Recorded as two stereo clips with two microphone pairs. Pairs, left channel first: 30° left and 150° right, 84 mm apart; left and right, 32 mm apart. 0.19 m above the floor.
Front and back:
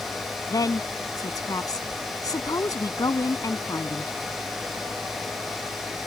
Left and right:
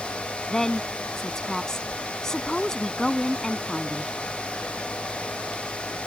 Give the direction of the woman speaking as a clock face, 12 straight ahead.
11 o'clock.